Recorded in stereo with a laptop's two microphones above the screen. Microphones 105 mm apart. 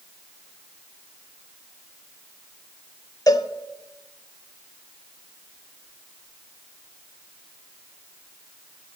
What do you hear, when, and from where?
3.3 s a cowbell: 35° left (ahead or behind), 1.2 m